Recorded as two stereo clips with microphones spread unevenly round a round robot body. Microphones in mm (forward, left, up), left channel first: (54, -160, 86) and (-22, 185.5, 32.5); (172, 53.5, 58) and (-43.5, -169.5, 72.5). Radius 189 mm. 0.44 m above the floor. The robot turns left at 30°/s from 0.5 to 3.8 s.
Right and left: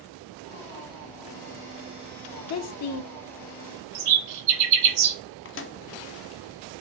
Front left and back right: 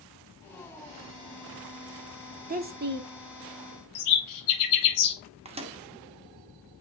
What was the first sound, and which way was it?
A woman speaking, 85° right.